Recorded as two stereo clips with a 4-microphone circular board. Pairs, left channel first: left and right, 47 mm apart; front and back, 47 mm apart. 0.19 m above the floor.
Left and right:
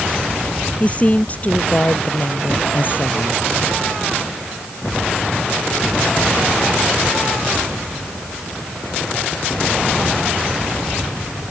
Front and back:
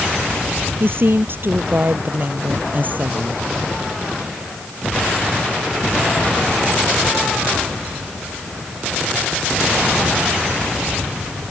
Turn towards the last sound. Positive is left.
turn(degrees=130)